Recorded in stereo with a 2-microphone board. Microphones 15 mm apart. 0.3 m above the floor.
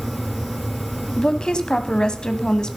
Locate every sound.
1.2 s a woman speaking: 55° left (ahead or behind), 1.5 m; by 2.8 s 50° left (ahead or behind), 1.7 m